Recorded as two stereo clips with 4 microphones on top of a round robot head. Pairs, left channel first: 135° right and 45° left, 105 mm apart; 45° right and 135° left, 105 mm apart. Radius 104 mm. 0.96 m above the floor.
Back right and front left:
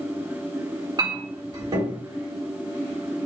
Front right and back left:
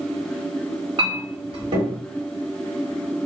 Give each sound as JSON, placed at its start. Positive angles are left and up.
{"t": 1.0, "sound": "a clink", "azimuth_deg": 95, "distance_m": 1.7}